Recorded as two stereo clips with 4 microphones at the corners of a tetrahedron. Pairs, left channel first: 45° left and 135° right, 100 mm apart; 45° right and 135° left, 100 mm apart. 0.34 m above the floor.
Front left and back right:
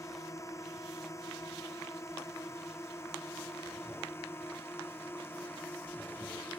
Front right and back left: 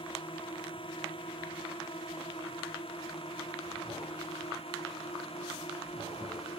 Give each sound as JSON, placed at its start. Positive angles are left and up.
{"t": 0.0, "sound": "a drone", "azimuth_deg": -15}